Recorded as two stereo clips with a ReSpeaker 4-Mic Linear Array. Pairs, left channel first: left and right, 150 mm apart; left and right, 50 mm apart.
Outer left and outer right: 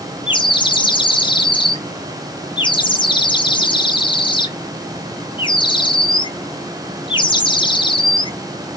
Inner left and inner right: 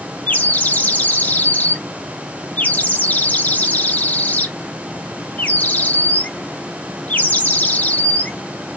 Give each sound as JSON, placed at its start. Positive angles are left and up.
{"t": 0.3, "sound": "a bird", "side_deg": 30, "distance_m": 0.5}